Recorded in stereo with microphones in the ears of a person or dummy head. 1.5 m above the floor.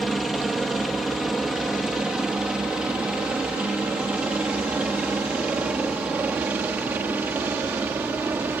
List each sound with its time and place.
0.0 s a helicopter: centre (ahead or behind); by 8.6 s 10° right (ahead or behind)